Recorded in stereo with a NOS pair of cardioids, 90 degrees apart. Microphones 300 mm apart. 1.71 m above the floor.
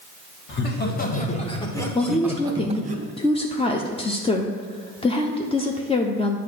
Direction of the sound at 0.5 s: 40° left.